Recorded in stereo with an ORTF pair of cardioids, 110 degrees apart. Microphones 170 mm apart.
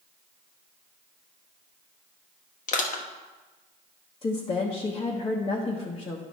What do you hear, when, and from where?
2.7 s crushing: 50° left, 1.1 m
4.2 s a woman speaking: 30° left, 1.2 m